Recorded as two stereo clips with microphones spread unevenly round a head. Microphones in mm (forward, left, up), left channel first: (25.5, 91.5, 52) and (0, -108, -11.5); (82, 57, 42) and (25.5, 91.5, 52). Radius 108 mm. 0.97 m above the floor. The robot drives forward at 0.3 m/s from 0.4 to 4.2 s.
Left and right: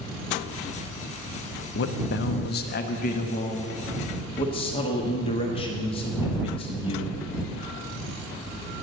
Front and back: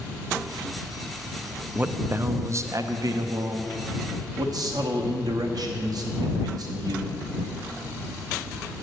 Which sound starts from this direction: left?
A man speaking, at 1.8 s.